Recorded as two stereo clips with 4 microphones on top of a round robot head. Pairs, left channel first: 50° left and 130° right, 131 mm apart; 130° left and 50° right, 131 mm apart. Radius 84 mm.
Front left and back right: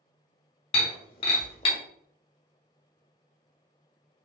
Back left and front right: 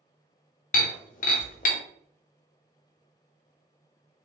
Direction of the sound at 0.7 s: 100° left.